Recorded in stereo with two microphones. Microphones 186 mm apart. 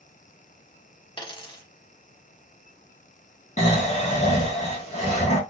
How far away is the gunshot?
No gunshot in this recording.